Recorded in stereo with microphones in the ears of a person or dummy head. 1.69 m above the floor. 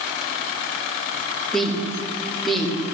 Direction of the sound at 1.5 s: 5° left (ahead or behind).